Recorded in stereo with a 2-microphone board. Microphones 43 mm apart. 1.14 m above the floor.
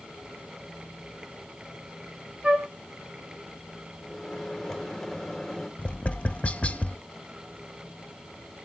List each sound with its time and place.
2.4 s a flute: 30° right (ahead or behind), 1.6 m
4.0 s a microwave: 5° left (ahead or behind), 2.0 m
5.8 s tapping: 35° left (ahead or behind), 0.5 m